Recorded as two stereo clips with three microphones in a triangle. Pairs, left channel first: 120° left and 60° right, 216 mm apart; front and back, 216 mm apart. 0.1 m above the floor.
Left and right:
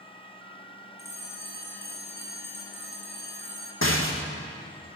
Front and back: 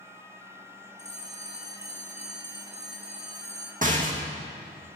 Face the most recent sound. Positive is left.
turn(degrees=130)